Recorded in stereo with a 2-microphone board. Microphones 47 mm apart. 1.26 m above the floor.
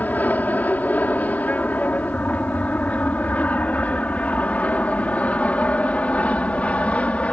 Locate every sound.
0.0 s an aircraft: 35° left (ahead or behind); by 7.3 s 25° left (ahead or behind)